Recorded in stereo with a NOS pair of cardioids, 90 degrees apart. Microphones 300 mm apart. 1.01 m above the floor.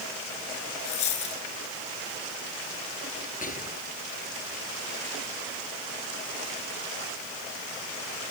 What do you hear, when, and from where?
0.8 s a dropped coin: 70° left
3.4 s whispering: 25° left